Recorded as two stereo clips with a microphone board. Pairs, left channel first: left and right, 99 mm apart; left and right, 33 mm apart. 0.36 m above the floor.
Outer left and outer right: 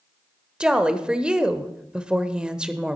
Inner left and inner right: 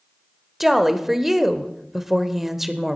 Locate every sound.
0.6 s a woman speaking: 10° right (ahead or behind), 0.9 m